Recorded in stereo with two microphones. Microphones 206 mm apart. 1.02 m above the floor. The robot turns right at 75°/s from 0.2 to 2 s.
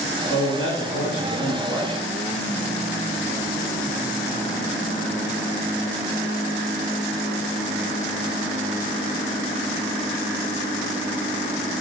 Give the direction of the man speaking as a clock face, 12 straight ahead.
10 o'clock.